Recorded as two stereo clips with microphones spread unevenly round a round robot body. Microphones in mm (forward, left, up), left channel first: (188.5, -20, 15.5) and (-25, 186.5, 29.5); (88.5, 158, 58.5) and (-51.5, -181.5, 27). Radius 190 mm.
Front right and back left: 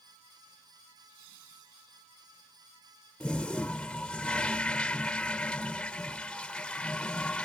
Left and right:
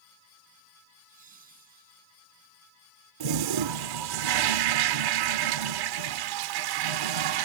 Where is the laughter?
175° left; by 2.1 s straight behind.